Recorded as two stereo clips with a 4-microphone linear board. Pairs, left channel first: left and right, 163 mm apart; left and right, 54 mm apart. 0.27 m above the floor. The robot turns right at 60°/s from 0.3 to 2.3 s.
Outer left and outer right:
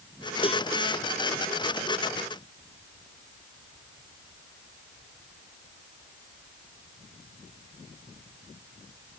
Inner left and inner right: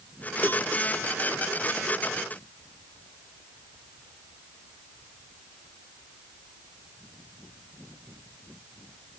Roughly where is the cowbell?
Left.